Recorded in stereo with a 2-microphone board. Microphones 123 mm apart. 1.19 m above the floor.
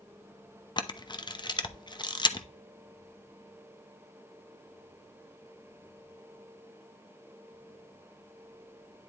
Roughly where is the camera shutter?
Left.